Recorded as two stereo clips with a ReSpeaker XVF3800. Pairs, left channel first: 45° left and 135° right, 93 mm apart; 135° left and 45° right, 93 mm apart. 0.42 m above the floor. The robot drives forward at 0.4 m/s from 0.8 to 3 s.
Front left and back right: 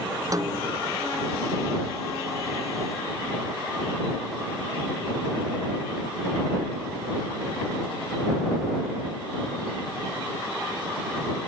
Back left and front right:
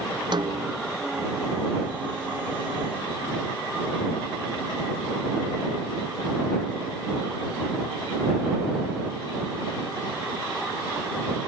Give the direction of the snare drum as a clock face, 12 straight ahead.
3 o'clock.